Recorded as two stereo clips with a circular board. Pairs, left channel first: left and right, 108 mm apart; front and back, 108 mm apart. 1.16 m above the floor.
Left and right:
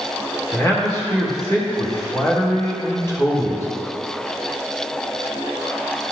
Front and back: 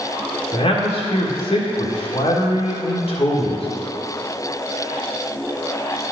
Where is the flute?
I don't hear a flute.